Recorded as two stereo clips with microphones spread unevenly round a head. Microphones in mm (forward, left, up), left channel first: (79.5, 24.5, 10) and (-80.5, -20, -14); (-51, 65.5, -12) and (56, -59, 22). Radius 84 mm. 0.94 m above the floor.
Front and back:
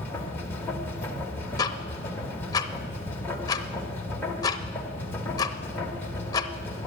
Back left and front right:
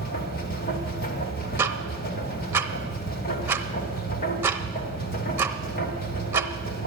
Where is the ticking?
5° right, 0.7 m.